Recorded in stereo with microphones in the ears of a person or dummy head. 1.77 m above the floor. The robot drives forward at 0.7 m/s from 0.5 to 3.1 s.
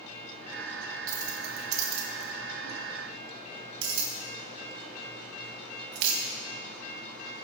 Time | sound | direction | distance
1.1 | keys jangling | 45° right (ahead or behind) | 1.8 m